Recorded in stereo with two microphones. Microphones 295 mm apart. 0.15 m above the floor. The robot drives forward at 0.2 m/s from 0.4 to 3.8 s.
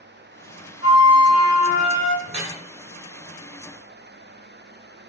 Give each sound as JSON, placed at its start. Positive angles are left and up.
{"t": 0.8, "sound": "a flute", "side_deg": 50, "distance_m": 0.7}
{"t": 2.3, "sound": "dripping", "side_deg": -65, "distance_m": 1.3}